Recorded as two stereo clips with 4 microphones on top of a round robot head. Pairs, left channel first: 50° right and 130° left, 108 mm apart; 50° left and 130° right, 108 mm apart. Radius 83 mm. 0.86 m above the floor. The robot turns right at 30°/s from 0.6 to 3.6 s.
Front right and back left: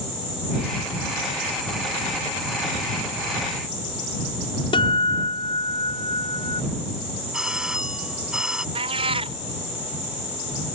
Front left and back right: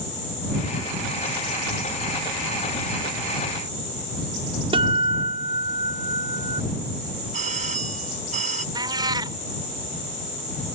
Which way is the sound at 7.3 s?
145° right.